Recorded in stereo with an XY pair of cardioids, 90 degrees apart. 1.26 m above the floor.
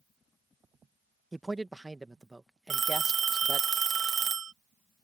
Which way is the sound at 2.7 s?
50° right.